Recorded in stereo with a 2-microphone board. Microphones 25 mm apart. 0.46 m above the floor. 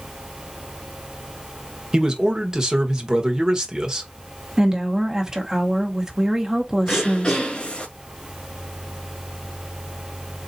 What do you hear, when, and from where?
1.9 s a man speaking: 25° right (ahead or behind), 1.3 m
4.6 s a woman speaking: 25° right (ahead or behind), 1.3 m
6.9 s throat clearing: 35° left (ahead or behind), 1.4 m